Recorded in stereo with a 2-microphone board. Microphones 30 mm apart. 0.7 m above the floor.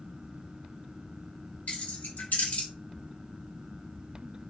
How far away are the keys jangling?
About 1.4 m.